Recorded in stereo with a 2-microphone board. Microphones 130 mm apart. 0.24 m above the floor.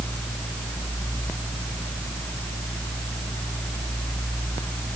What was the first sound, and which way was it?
Only background noise.